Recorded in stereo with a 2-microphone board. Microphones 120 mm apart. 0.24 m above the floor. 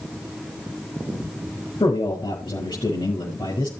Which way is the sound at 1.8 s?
35° left (ahead or behind).